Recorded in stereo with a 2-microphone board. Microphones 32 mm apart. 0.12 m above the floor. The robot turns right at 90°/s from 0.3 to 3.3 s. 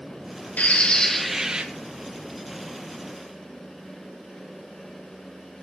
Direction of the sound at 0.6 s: 120° left.